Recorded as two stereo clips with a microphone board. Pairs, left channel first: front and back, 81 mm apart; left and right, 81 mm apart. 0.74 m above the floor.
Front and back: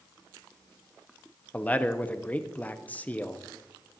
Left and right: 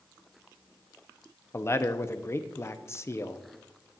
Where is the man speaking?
60° left, 0.7 m.